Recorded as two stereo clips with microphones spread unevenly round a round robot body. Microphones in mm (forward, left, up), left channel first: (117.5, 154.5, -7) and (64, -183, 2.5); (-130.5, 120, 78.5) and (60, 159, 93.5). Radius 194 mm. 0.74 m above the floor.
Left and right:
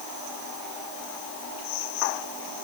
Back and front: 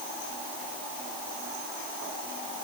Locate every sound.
Only background noise.